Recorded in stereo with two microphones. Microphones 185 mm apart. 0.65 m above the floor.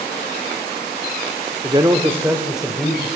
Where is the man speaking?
30° right (ahead or behind), 1.4 m; by 3.1 s 5° left (ahead or behind), 2.5 m.